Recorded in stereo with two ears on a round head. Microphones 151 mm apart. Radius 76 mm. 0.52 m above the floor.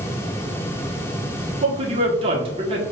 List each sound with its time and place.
1.6 s a man speaking: 35° right (ahead or behind), 1.0 m